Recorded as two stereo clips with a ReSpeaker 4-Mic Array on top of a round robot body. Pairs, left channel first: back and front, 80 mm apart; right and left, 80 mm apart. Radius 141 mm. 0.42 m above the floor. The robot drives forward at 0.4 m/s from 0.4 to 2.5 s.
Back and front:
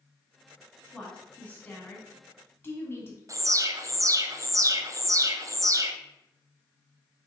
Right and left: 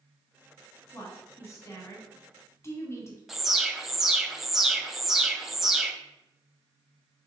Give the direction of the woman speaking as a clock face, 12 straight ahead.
4 o'clock.